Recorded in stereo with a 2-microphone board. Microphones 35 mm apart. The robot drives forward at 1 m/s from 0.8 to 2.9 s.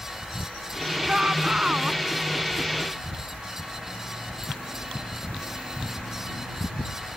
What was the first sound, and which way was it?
A shout, 20° right (ahead or behind).